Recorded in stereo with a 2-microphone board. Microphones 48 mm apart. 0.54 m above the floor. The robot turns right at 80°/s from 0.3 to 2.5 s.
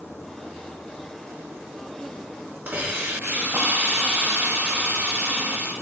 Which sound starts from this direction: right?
A hiss, at 2.7 s.